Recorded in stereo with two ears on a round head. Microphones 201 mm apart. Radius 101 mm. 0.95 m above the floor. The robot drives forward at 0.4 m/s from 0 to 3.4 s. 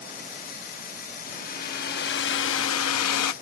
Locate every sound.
1.2 s a hair dryer: 35° left (ahead or behind); by 3.3 s 80° left